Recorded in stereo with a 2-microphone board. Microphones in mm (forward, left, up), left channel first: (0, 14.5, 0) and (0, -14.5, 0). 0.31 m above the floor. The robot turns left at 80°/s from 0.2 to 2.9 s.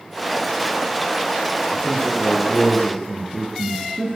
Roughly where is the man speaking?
Left.